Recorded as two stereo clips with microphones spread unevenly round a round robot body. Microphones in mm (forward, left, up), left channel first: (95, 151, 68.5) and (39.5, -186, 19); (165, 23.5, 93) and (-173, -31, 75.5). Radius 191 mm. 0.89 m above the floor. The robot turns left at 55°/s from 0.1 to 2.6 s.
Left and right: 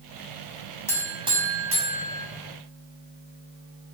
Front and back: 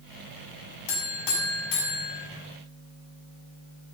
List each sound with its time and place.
0.9 s a buzzer: straight ahead, 6 m; by 2.3 s 80° right, 6 m